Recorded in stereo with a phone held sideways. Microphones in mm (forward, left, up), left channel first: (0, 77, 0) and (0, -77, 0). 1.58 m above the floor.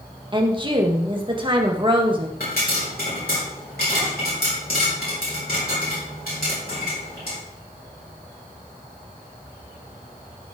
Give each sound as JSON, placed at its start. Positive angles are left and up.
{"t": 0.3, "sound": "a woman speaking", "side_deg": -30, "distance_m": 1.6}
{"t": 2.4, "sound": "a pop", "side_deg": 85, "distance_m": 5.5}